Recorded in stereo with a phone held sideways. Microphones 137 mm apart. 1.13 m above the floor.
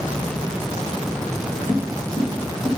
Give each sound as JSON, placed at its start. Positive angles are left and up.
{"t": 1.7, "sound": "footsteps", "side_deg": 50, "distance_m": 3.0}